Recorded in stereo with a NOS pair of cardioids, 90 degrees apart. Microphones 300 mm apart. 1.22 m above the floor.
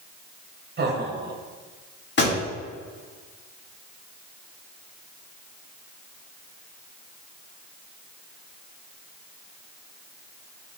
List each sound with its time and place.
0.8 s laughter: 35° right, 1.8 m
2.2 s a pop: 35° left, 2.5 m